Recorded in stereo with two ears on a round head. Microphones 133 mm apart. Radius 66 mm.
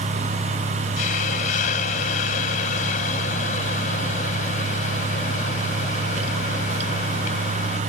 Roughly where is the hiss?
Left.